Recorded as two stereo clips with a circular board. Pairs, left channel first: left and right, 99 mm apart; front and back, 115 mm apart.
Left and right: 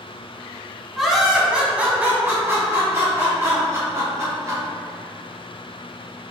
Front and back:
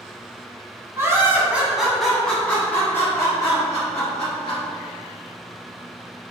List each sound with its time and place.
0.9 s laughter: straight behind, 1.2 m; by 4.6 s 45° right, 2.0 m